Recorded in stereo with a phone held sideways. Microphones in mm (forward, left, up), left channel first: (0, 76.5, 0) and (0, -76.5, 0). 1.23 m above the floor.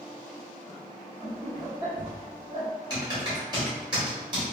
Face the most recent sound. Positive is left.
turn(degrees=-30)  # may be behind; listen again after turning